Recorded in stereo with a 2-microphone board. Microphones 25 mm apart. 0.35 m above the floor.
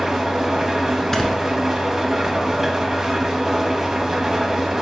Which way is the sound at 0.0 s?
15° right (ahead or behind).